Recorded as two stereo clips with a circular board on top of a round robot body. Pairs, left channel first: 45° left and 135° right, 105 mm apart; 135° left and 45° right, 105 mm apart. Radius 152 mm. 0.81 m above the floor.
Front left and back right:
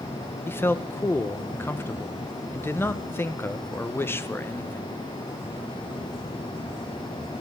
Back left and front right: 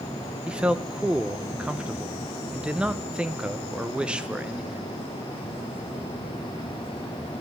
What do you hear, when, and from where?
0.5 s a man speaking: 20° left, 1.0 m